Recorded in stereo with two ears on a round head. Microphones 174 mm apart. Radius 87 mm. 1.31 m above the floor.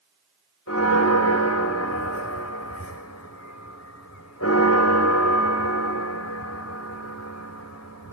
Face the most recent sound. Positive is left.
turn(degrees=85)